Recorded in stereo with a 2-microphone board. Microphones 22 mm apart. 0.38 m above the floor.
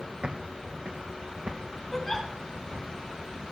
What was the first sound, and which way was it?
Footsteps, 65° right (ahead or behind).